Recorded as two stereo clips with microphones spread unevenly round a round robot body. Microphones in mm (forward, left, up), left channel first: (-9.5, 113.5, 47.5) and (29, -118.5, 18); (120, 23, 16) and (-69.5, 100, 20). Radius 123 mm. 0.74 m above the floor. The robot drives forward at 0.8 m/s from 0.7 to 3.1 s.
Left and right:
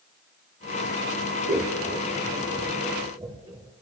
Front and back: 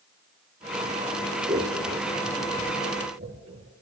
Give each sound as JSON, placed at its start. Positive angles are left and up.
{"t": 1.5, "sound": "scissors", "azimuth_deg": -135, "distance_m": 1.7}